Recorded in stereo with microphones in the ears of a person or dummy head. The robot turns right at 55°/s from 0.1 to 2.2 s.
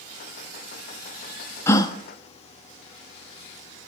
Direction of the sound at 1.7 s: 15° left (ahead or behind).